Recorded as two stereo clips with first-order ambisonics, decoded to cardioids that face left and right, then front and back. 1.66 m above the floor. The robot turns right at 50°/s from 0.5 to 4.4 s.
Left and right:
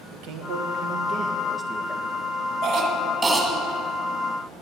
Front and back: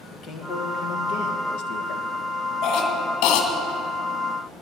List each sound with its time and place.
0.1 s a man speaking: 65° right, 1.5 m; by 2.1 s 15° left, 1.5 m
2.6 s a cough: 40° right, 2 m; by 3.5 s 5° left, 2 m